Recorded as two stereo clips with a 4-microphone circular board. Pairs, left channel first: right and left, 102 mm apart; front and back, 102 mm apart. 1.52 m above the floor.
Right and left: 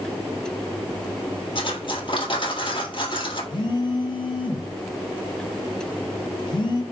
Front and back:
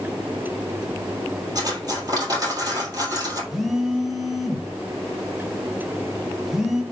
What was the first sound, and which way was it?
Cutlery clinking, 125° right.